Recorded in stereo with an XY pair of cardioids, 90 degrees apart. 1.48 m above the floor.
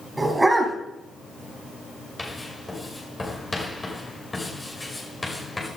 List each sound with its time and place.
0.2 s a dog barking: 20° right, 4.5 m
2.2 s writing: 20° left, 5.5 m